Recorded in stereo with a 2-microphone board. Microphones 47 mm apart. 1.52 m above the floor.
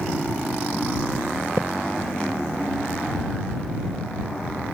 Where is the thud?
70° right (ahead or behind).